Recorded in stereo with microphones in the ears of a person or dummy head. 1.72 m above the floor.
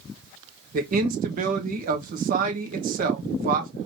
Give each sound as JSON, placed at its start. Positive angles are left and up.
{"t": 0.7, "sound": "a man speaking", "side_deg": -55, "distance_m": 1.1}